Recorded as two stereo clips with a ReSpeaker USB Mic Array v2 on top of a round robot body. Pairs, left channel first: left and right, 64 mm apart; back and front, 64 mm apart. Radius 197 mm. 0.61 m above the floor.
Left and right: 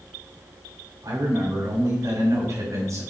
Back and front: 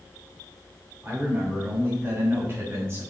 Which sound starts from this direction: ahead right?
A man speaking, at 1.0 s.